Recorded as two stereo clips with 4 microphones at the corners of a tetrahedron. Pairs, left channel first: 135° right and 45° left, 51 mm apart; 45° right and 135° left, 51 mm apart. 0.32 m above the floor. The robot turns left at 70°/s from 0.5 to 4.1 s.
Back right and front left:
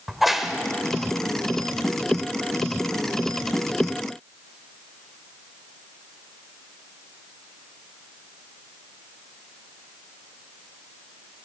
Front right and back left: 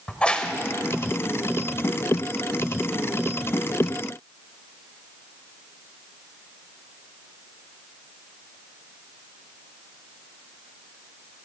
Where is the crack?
35° right, 1.2 m; by 0.5 s 40° right, 1.2 m.